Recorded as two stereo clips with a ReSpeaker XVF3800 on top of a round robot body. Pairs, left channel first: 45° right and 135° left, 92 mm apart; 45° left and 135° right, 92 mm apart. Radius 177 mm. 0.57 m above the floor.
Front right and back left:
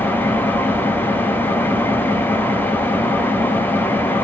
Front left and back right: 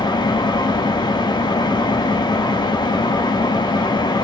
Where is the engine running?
20° left, 0.9 m.